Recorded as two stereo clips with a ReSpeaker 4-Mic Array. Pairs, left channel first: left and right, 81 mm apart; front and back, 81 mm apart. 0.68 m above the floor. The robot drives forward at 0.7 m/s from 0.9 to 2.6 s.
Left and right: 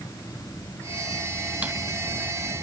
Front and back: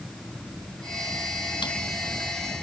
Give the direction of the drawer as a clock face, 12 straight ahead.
1 o'clock.